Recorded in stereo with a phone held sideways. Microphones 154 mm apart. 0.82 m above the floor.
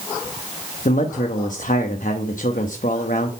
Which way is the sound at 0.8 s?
60° left (ahead or behind).